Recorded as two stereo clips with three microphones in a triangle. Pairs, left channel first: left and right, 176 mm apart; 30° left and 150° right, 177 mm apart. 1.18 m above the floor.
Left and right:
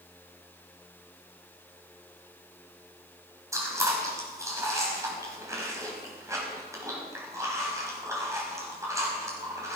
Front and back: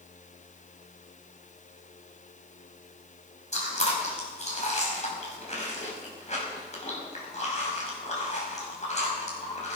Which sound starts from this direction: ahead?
Chewing, at 3.5 s.